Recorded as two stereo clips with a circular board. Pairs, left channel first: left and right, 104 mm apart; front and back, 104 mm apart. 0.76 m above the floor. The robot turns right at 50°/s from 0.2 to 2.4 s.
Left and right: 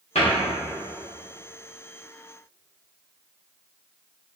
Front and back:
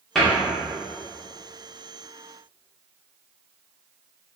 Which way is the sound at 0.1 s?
85° left.